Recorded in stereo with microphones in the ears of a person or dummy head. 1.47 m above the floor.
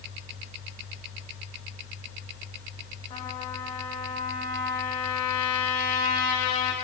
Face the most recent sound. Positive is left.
turn(degrees=35)  # may be behind; listen again after turning